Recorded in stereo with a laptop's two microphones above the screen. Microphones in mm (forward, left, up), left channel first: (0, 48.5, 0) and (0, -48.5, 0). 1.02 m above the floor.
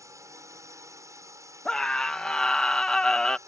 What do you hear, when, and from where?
0.0 s a drone: 35° right (ahead or behind)
1.6 s a scream: 5° left (ahead or behind)